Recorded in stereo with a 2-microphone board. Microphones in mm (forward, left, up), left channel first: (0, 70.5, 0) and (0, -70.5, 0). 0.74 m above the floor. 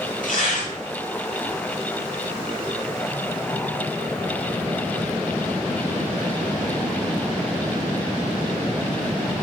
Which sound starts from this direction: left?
Tearing paper, at 0.2 s.